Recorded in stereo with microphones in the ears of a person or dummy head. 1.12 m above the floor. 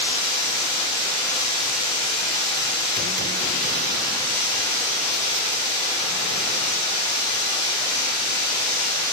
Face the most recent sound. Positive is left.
turn(degrees=40)  # may be behind; listen again after turning